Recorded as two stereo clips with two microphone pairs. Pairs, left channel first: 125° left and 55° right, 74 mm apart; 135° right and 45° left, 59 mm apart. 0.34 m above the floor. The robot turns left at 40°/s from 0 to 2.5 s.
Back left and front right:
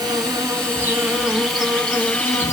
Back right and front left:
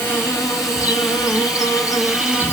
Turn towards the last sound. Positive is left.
turn(degrees=180)